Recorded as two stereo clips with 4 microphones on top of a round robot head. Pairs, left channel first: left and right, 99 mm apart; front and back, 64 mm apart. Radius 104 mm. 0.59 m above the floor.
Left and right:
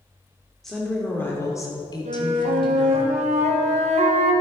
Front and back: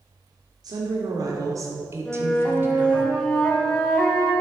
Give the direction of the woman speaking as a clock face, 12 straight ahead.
6 o'clock.